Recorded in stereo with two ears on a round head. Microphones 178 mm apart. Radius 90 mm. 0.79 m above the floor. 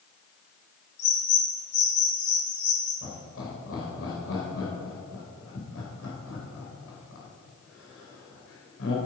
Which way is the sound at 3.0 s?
70° left (ahead or behind).